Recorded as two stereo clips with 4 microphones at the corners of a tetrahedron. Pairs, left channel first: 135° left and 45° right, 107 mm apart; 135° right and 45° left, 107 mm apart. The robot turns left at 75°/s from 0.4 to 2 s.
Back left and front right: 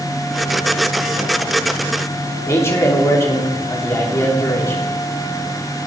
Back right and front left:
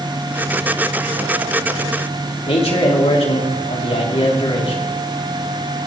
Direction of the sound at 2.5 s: 160° right.